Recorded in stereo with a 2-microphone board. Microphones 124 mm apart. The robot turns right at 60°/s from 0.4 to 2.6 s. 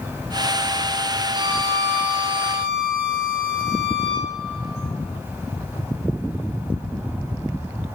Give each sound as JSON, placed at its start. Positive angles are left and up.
{"t": 1.3, "sound": "a violin", "azimuth_deg": -115, "distance_m": 2.0}